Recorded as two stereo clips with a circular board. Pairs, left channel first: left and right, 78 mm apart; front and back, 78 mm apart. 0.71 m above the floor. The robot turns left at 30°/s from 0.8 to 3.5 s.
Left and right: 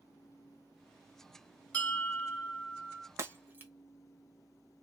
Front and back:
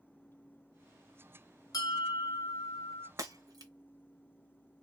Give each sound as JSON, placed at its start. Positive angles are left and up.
{"t": 1.7, "sound": "a bell", "azimuth_deg": 25, "distance_m": 1.1}
{"t": 3.2, "sound": "breaking glass", "azimuth_deg": -140, "distance_m": 1.0}